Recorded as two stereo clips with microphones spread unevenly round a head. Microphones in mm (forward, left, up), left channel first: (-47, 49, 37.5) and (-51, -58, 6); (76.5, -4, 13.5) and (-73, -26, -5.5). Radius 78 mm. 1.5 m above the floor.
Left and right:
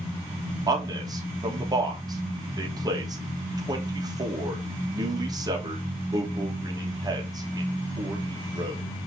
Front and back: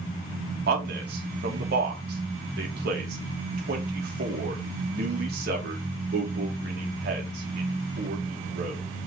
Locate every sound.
0.7 s a man speaking: 150° right, 3 m